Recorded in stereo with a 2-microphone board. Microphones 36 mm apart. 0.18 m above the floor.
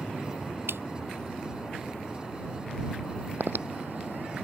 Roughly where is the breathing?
Right.